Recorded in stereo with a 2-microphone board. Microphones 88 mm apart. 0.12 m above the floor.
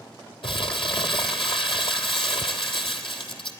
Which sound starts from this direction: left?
Crumpling, at 0.4 s.